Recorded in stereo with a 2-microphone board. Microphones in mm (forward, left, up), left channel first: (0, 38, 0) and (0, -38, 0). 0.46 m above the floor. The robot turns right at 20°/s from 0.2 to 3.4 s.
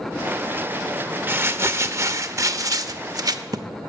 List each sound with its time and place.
1.3 s crumpling: 150° right, 0.6 m; by 3.7 s 105° right, 0.6 m